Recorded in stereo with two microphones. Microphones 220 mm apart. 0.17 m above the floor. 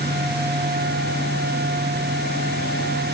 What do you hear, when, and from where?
Only background noise.